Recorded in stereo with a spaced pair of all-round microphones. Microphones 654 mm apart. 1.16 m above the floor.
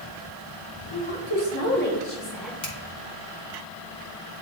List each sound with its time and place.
0.9 s a woman speaking: 40° left (ahead or behind), 1.9 m; by 2.5 s centre (ahead or behind), 2.5 m
2.6 s a finger snap: 65° left (ahead or behind), 1.8 m